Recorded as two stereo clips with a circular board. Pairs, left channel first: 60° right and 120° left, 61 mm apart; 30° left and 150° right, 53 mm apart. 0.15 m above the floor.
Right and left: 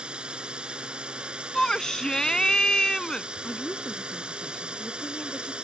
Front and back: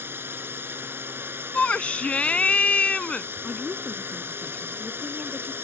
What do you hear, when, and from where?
0.0 s a drone: 175° right
1.5 s a shout: straight ahead
3.4 s a woman speaking: 20° right